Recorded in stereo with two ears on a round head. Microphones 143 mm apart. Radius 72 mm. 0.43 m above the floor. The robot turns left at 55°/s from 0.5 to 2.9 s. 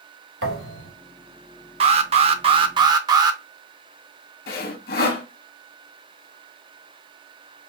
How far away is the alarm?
About 0.5 m.